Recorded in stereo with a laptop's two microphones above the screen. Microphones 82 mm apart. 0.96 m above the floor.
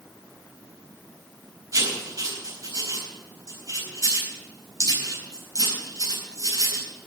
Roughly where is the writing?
Right.